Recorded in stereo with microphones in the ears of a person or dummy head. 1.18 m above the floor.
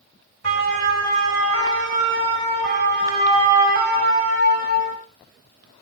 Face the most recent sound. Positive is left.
turn(degrees=-40)  # may be behind; listen again after turning